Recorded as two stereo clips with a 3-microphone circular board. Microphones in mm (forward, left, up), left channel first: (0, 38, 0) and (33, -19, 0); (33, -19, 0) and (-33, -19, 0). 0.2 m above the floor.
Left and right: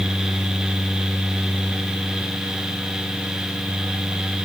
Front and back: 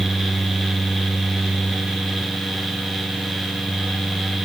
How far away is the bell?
I don't hear a bell.